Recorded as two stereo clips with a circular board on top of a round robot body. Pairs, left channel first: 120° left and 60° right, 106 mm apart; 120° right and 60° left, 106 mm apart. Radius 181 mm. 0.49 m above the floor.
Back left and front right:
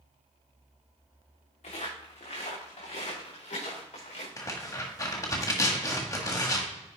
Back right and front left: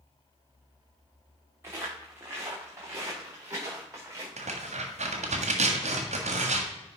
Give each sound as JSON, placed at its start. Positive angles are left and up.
{"t": 1.6, "sound": "footsteps", "azimuth_deg": 125, "distance_m": 3.5}
{"t": 4.4, "sound": "tearing paper", "azimuth_deg": 60, "distance_m": 1.5}